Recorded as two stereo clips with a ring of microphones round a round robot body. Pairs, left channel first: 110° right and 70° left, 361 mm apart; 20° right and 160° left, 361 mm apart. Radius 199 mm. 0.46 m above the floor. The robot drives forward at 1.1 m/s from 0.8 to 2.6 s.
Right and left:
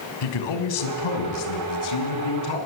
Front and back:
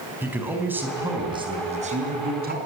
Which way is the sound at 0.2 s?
120° right.